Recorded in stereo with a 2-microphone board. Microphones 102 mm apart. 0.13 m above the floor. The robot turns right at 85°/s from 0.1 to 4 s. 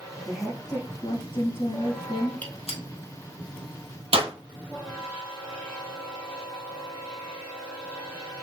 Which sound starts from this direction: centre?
A gunshot, at 2.4 s.